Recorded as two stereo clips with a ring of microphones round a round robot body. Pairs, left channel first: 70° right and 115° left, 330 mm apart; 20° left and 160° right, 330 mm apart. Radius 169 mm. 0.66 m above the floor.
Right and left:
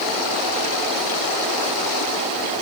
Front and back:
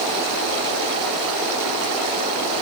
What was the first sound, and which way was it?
Only background noise.